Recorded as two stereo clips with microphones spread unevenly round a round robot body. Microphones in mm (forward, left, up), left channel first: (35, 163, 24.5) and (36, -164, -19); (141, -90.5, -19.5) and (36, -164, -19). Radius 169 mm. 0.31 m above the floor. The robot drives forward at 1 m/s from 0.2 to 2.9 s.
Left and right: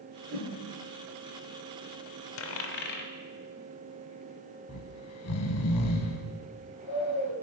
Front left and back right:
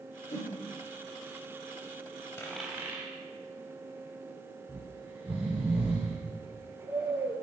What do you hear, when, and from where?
0.3 s a whoosh: 10° left, 3.5 m
2.4 s a dropped coin: 80° left, 0.5 m; by 3.1 s 150° left, 0.7 m
4.7 s snoring: 140° left, 0.6 m